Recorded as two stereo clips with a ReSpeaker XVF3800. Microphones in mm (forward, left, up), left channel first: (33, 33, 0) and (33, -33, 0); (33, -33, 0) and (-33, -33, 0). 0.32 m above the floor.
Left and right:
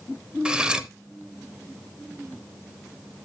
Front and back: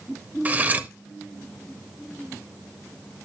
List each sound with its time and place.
0.5 s cutlery clinking: 155° right, 0.7 m